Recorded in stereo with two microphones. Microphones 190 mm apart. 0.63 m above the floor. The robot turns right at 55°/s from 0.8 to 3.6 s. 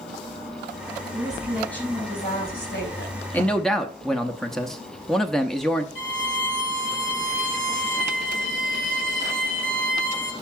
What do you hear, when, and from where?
1.1 s a woman speaking: 25° right, 4.5 m; by 3.2 s 90° left, 4.5 m
3.3 s a man speaking: 10° left (ahead or behind), 0.8 m; by 5.8 s centre (ahead or behind), 0.8 m
6.0 s a violin: 75° left (ahead or behind), 2 m